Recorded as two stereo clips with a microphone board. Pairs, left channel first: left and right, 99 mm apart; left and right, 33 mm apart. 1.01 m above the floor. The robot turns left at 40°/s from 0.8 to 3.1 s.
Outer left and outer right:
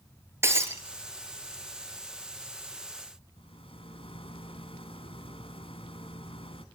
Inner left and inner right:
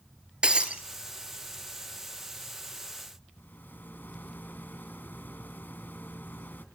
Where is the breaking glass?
25° right (ahead or behind), 3 m.